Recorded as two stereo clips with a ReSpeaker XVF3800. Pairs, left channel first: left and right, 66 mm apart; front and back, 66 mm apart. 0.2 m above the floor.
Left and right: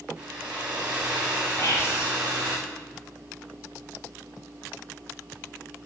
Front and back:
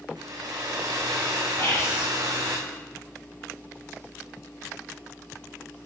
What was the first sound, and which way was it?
A hair dryer, 160° right.